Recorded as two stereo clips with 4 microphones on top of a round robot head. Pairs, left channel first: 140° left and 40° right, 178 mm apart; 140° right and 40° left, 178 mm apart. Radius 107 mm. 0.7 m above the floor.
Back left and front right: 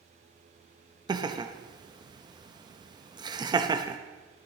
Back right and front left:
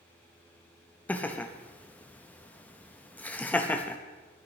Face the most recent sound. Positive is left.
turn(degrees=-70)